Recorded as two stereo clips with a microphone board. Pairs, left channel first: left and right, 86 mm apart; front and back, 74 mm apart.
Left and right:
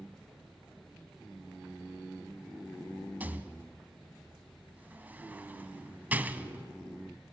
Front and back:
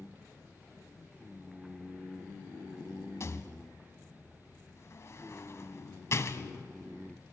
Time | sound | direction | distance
3.2 | a rattle | 30° right | 0.8 m